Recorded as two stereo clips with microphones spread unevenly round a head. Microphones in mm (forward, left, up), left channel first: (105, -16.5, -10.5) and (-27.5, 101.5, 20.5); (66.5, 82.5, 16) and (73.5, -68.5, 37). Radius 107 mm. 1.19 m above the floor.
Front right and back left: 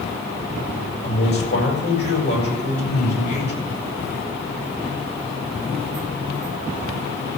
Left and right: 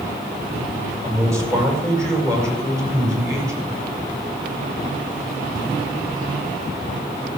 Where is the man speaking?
15° right, 7 m.